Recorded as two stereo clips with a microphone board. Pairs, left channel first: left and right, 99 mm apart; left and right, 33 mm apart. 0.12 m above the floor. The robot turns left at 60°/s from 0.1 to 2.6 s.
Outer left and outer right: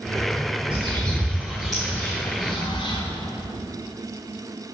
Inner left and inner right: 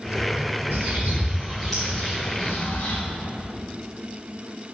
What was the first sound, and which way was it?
A bird, 60° right (ahead or behind).